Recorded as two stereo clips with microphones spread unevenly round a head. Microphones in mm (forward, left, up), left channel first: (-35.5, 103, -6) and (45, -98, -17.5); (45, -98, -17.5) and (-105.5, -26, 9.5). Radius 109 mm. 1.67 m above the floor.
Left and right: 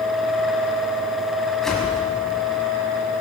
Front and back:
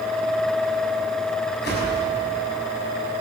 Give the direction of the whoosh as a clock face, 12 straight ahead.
11 o'clock.